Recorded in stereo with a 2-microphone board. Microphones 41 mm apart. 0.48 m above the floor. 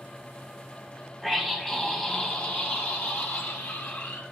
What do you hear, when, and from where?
1.2 s a scream: 5° left (ahead or behind), 3.5 m; by 4.2 s 75° left (ahead or behind), 3.5 m